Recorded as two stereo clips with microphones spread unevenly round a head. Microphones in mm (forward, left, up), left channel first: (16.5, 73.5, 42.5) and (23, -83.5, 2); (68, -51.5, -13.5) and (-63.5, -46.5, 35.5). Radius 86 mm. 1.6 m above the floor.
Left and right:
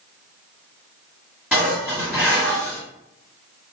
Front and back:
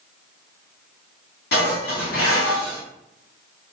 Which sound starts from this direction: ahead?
Dishes clattering, at 1.5 s.